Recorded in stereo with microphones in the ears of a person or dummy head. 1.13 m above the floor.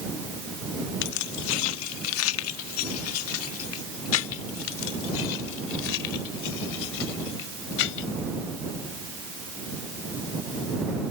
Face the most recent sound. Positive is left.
turn(degrees=75)  # may be behind; listen again after turning